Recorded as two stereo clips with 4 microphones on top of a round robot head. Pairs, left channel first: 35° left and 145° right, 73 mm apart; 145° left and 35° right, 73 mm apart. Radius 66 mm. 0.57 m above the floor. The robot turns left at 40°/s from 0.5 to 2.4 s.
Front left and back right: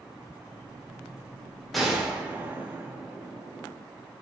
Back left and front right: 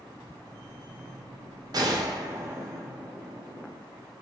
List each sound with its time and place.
1.7 s a gunshot: 55° right, 1.4 m; by 3.8 s 80° right, 1.4 m